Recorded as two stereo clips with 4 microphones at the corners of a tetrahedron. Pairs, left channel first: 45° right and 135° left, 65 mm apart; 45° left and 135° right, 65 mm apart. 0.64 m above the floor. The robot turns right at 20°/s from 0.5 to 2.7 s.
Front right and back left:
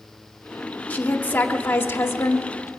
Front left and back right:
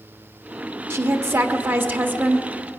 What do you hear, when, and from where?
0.9 s a woman speaking: 105° right, 1.2 m; by 2.7 s 70° right, 1.2 m